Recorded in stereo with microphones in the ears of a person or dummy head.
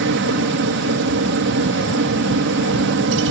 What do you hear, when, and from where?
0.0 s a helicopter: 55° right (ahead or behind)